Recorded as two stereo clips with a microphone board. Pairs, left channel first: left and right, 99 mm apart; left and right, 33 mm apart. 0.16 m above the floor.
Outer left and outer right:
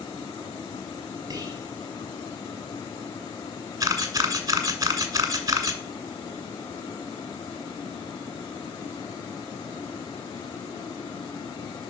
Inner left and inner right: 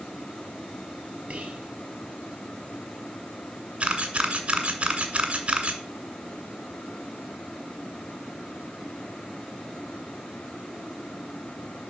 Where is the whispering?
40° right (ahead or behind), 3.5 m.